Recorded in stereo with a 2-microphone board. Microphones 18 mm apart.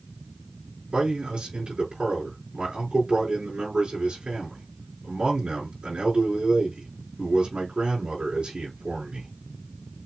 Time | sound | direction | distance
0.9 | a man speaking | 65° right (ahead or behind) | 4 m